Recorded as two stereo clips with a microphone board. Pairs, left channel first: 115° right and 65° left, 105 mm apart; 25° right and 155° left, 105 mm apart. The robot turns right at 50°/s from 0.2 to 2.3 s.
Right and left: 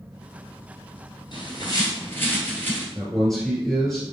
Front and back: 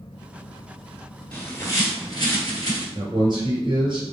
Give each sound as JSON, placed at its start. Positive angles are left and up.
{"t": 1.3, "sound": "a bird", "azimuth_deg": -95, "distance_m": 1.7}
{"t": 3.0, "sound": "a man speaking", "azimuth_deg": 165, "distance_m": 2.0}